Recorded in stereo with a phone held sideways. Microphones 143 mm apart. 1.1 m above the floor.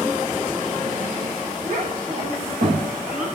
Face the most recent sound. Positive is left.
turn(degrees=-90)